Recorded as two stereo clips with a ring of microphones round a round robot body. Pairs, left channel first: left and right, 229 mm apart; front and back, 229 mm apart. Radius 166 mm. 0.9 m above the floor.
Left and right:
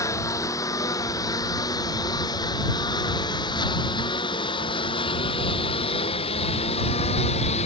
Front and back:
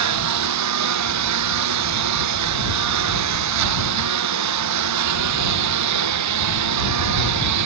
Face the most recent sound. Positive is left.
turn(degrees=165)